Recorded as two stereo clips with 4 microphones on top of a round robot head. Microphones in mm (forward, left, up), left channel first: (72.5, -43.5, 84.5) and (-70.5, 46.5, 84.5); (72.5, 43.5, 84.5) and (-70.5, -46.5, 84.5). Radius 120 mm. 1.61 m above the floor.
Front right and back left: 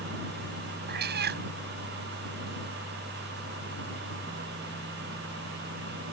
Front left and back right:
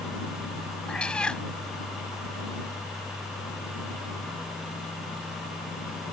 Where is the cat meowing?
115° left.